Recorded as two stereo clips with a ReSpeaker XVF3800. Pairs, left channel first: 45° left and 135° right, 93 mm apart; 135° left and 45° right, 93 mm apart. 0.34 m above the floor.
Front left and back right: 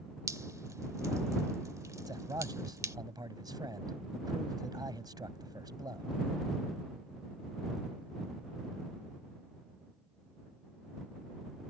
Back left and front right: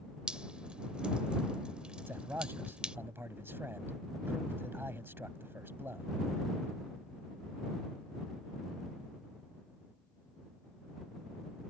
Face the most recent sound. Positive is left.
turn(degrees=-105)